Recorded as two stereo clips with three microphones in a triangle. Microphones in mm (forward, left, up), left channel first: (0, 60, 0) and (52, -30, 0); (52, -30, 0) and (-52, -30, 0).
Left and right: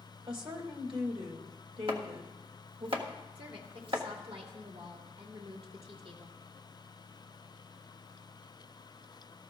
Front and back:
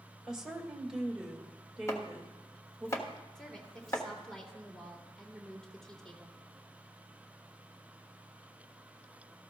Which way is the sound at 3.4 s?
85° right.